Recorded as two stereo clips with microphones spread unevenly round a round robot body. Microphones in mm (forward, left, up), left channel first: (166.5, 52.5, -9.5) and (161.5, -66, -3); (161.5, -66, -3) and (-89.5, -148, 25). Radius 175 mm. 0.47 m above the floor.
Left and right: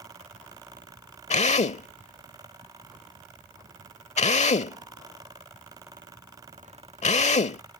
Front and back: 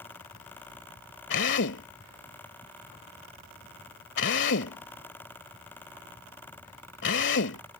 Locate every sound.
1.3 s a drill: 75° left